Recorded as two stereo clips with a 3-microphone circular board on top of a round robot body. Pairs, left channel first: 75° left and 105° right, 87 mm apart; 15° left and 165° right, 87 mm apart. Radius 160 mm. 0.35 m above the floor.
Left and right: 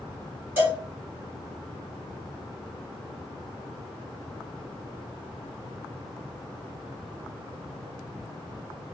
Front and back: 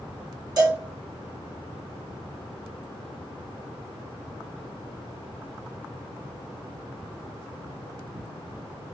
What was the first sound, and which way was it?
A cowbell, 160° right.